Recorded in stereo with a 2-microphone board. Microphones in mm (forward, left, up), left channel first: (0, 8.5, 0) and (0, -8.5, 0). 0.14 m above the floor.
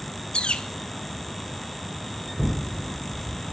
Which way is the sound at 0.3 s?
75° left (ahead or behind).